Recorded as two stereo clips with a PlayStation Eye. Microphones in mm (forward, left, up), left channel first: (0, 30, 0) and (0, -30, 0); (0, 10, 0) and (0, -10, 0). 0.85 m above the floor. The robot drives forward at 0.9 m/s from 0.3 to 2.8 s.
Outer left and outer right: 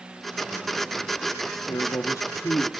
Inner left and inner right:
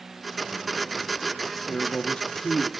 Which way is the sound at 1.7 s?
70° left (ahead or behind).